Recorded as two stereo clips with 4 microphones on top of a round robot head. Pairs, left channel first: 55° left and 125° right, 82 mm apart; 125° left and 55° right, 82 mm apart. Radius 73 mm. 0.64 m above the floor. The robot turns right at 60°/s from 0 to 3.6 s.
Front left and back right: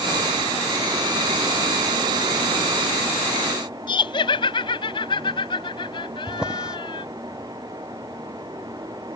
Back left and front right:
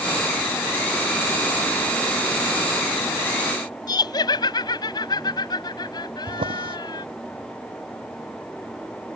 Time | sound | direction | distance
3.9 | laughter | 85° left | ?
6.3 | a drawer | 40° right | ?